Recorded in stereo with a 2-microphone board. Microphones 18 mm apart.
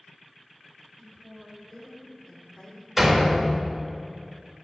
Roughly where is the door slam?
Centre.